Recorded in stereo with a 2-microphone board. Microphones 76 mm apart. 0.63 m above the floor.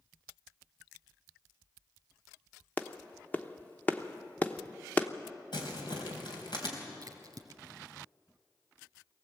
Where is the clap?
25° left (ahead or behind), 0.9 m.